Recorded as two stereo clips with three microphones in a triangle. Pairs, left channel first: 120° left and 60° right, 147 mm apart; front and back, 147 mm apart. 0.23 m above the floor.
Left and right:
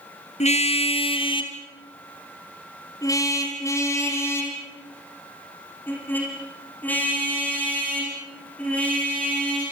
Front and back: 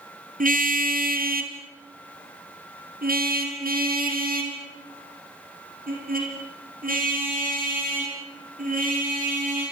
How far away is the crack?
No crack in this recording.